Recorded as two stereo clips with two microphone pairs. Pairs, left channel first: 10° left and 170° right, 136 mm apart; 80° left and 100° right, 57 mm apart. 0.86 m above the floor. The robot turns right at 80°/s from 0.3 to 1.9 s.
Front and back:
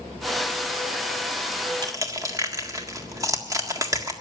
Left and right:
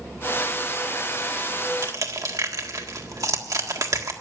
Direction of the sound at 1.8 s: 110° right.